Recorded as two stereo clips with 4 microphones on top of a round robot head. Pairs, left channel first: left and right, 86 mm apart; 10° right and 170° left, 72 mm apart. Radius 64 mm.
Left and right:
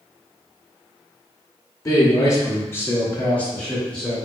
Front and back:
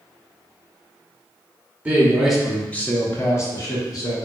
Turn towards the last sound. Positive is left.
turn(degrees=5)